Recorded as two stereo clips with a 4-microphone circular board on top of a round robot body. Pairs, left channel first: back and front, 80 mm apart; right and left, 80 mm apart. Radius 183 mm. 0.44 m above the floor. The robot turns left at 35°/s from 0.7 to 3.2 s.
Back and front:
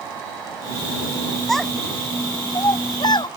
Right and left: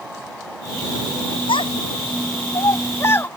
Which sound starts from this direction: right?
A child speaking, at 1.5 s.